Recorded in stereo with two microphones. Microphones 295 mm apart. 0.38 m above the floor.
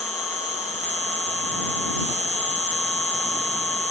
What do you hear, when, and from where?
0.0 s an insect: 25° right (ahead or behind)